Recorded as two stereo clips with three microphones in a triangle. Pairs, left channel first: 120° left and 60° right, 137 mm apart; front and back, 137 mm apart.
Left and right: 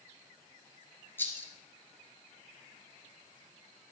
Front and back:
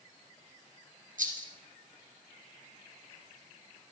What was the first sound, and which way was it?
A rattle, 165° right.